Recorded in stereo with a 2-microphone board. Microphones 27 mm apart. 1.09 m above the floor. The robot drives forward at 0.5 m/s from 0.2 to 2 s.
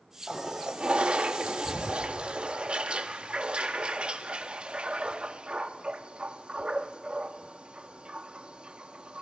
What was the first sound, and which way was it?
A toilet flushing, 30° right (ahead or behind).